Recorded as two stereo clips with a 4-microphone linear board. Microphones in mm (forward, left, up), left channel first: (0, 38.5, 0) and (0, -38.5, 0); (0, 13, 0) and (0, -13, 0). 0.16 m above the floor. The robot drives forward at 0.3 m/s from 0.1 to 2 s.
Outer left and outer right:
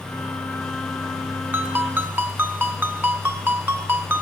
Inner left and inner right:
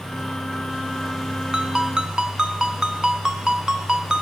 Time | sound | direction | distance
1.5 | a ringtone | 30° right (ahead or behind) | 0.8 m